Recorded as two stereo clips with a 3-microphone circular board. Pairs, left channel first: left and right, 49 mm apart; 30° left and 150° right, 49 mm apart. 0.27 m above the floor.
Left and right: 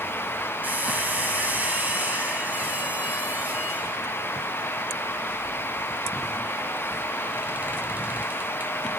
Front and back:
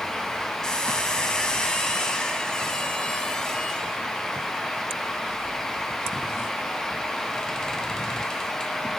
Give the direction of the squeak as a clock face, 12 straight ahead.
2 o'clock.